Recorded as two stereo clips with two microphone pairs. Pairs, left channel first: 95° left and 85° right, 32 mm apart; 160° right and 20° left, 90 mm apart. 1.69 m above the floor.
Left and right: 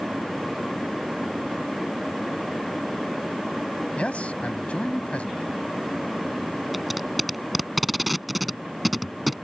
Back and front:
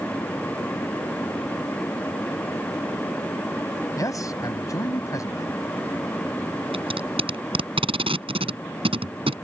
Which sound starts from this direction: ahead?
Tape being pulled, at 6.7 s.